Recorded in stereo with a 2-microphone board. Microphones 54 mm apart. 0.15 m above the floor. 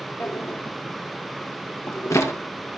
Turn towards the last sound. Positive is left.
turn(degrees=65)  # may be behind; listen again after turning